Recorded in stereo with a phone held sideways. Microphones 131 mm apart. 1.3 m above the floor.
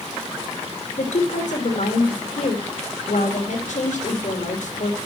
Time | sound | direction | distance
1.0 | a woman speaking | 75° left (ahead or behind) | 2.5 m